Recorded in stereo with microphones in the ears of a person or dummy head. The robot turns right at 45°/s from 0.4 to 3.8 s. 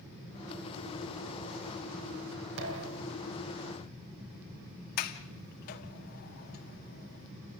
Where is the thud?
70° right (ahead or behind), 4 m.